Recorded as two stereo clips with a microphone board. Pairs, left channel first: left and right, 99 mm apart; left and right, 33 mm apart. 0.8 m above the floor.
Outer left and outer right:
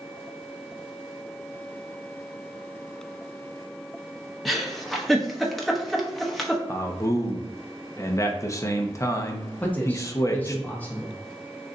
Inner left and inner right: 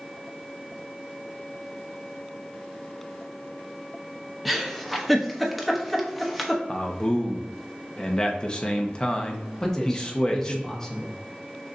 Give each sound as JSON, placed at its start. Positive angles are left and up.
{"t": 4.5, "sound": "a giggle", "side_deg": 0, "distance_m": 0.8}
{"t": 6.7, "sound": "a man speaking", "side_deg": 30, "distance_m": 0.8}
{"t": 9.6, "sound": "a man speaking", "side_deg": 15, "distance_m": 1.1}